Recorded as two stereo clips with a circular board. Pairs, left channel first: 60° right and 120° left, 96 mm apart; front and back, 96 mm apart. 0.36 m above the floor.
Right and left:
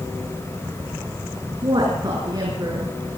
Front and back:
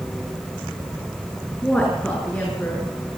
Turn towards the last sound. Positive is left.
turn(degrees=70)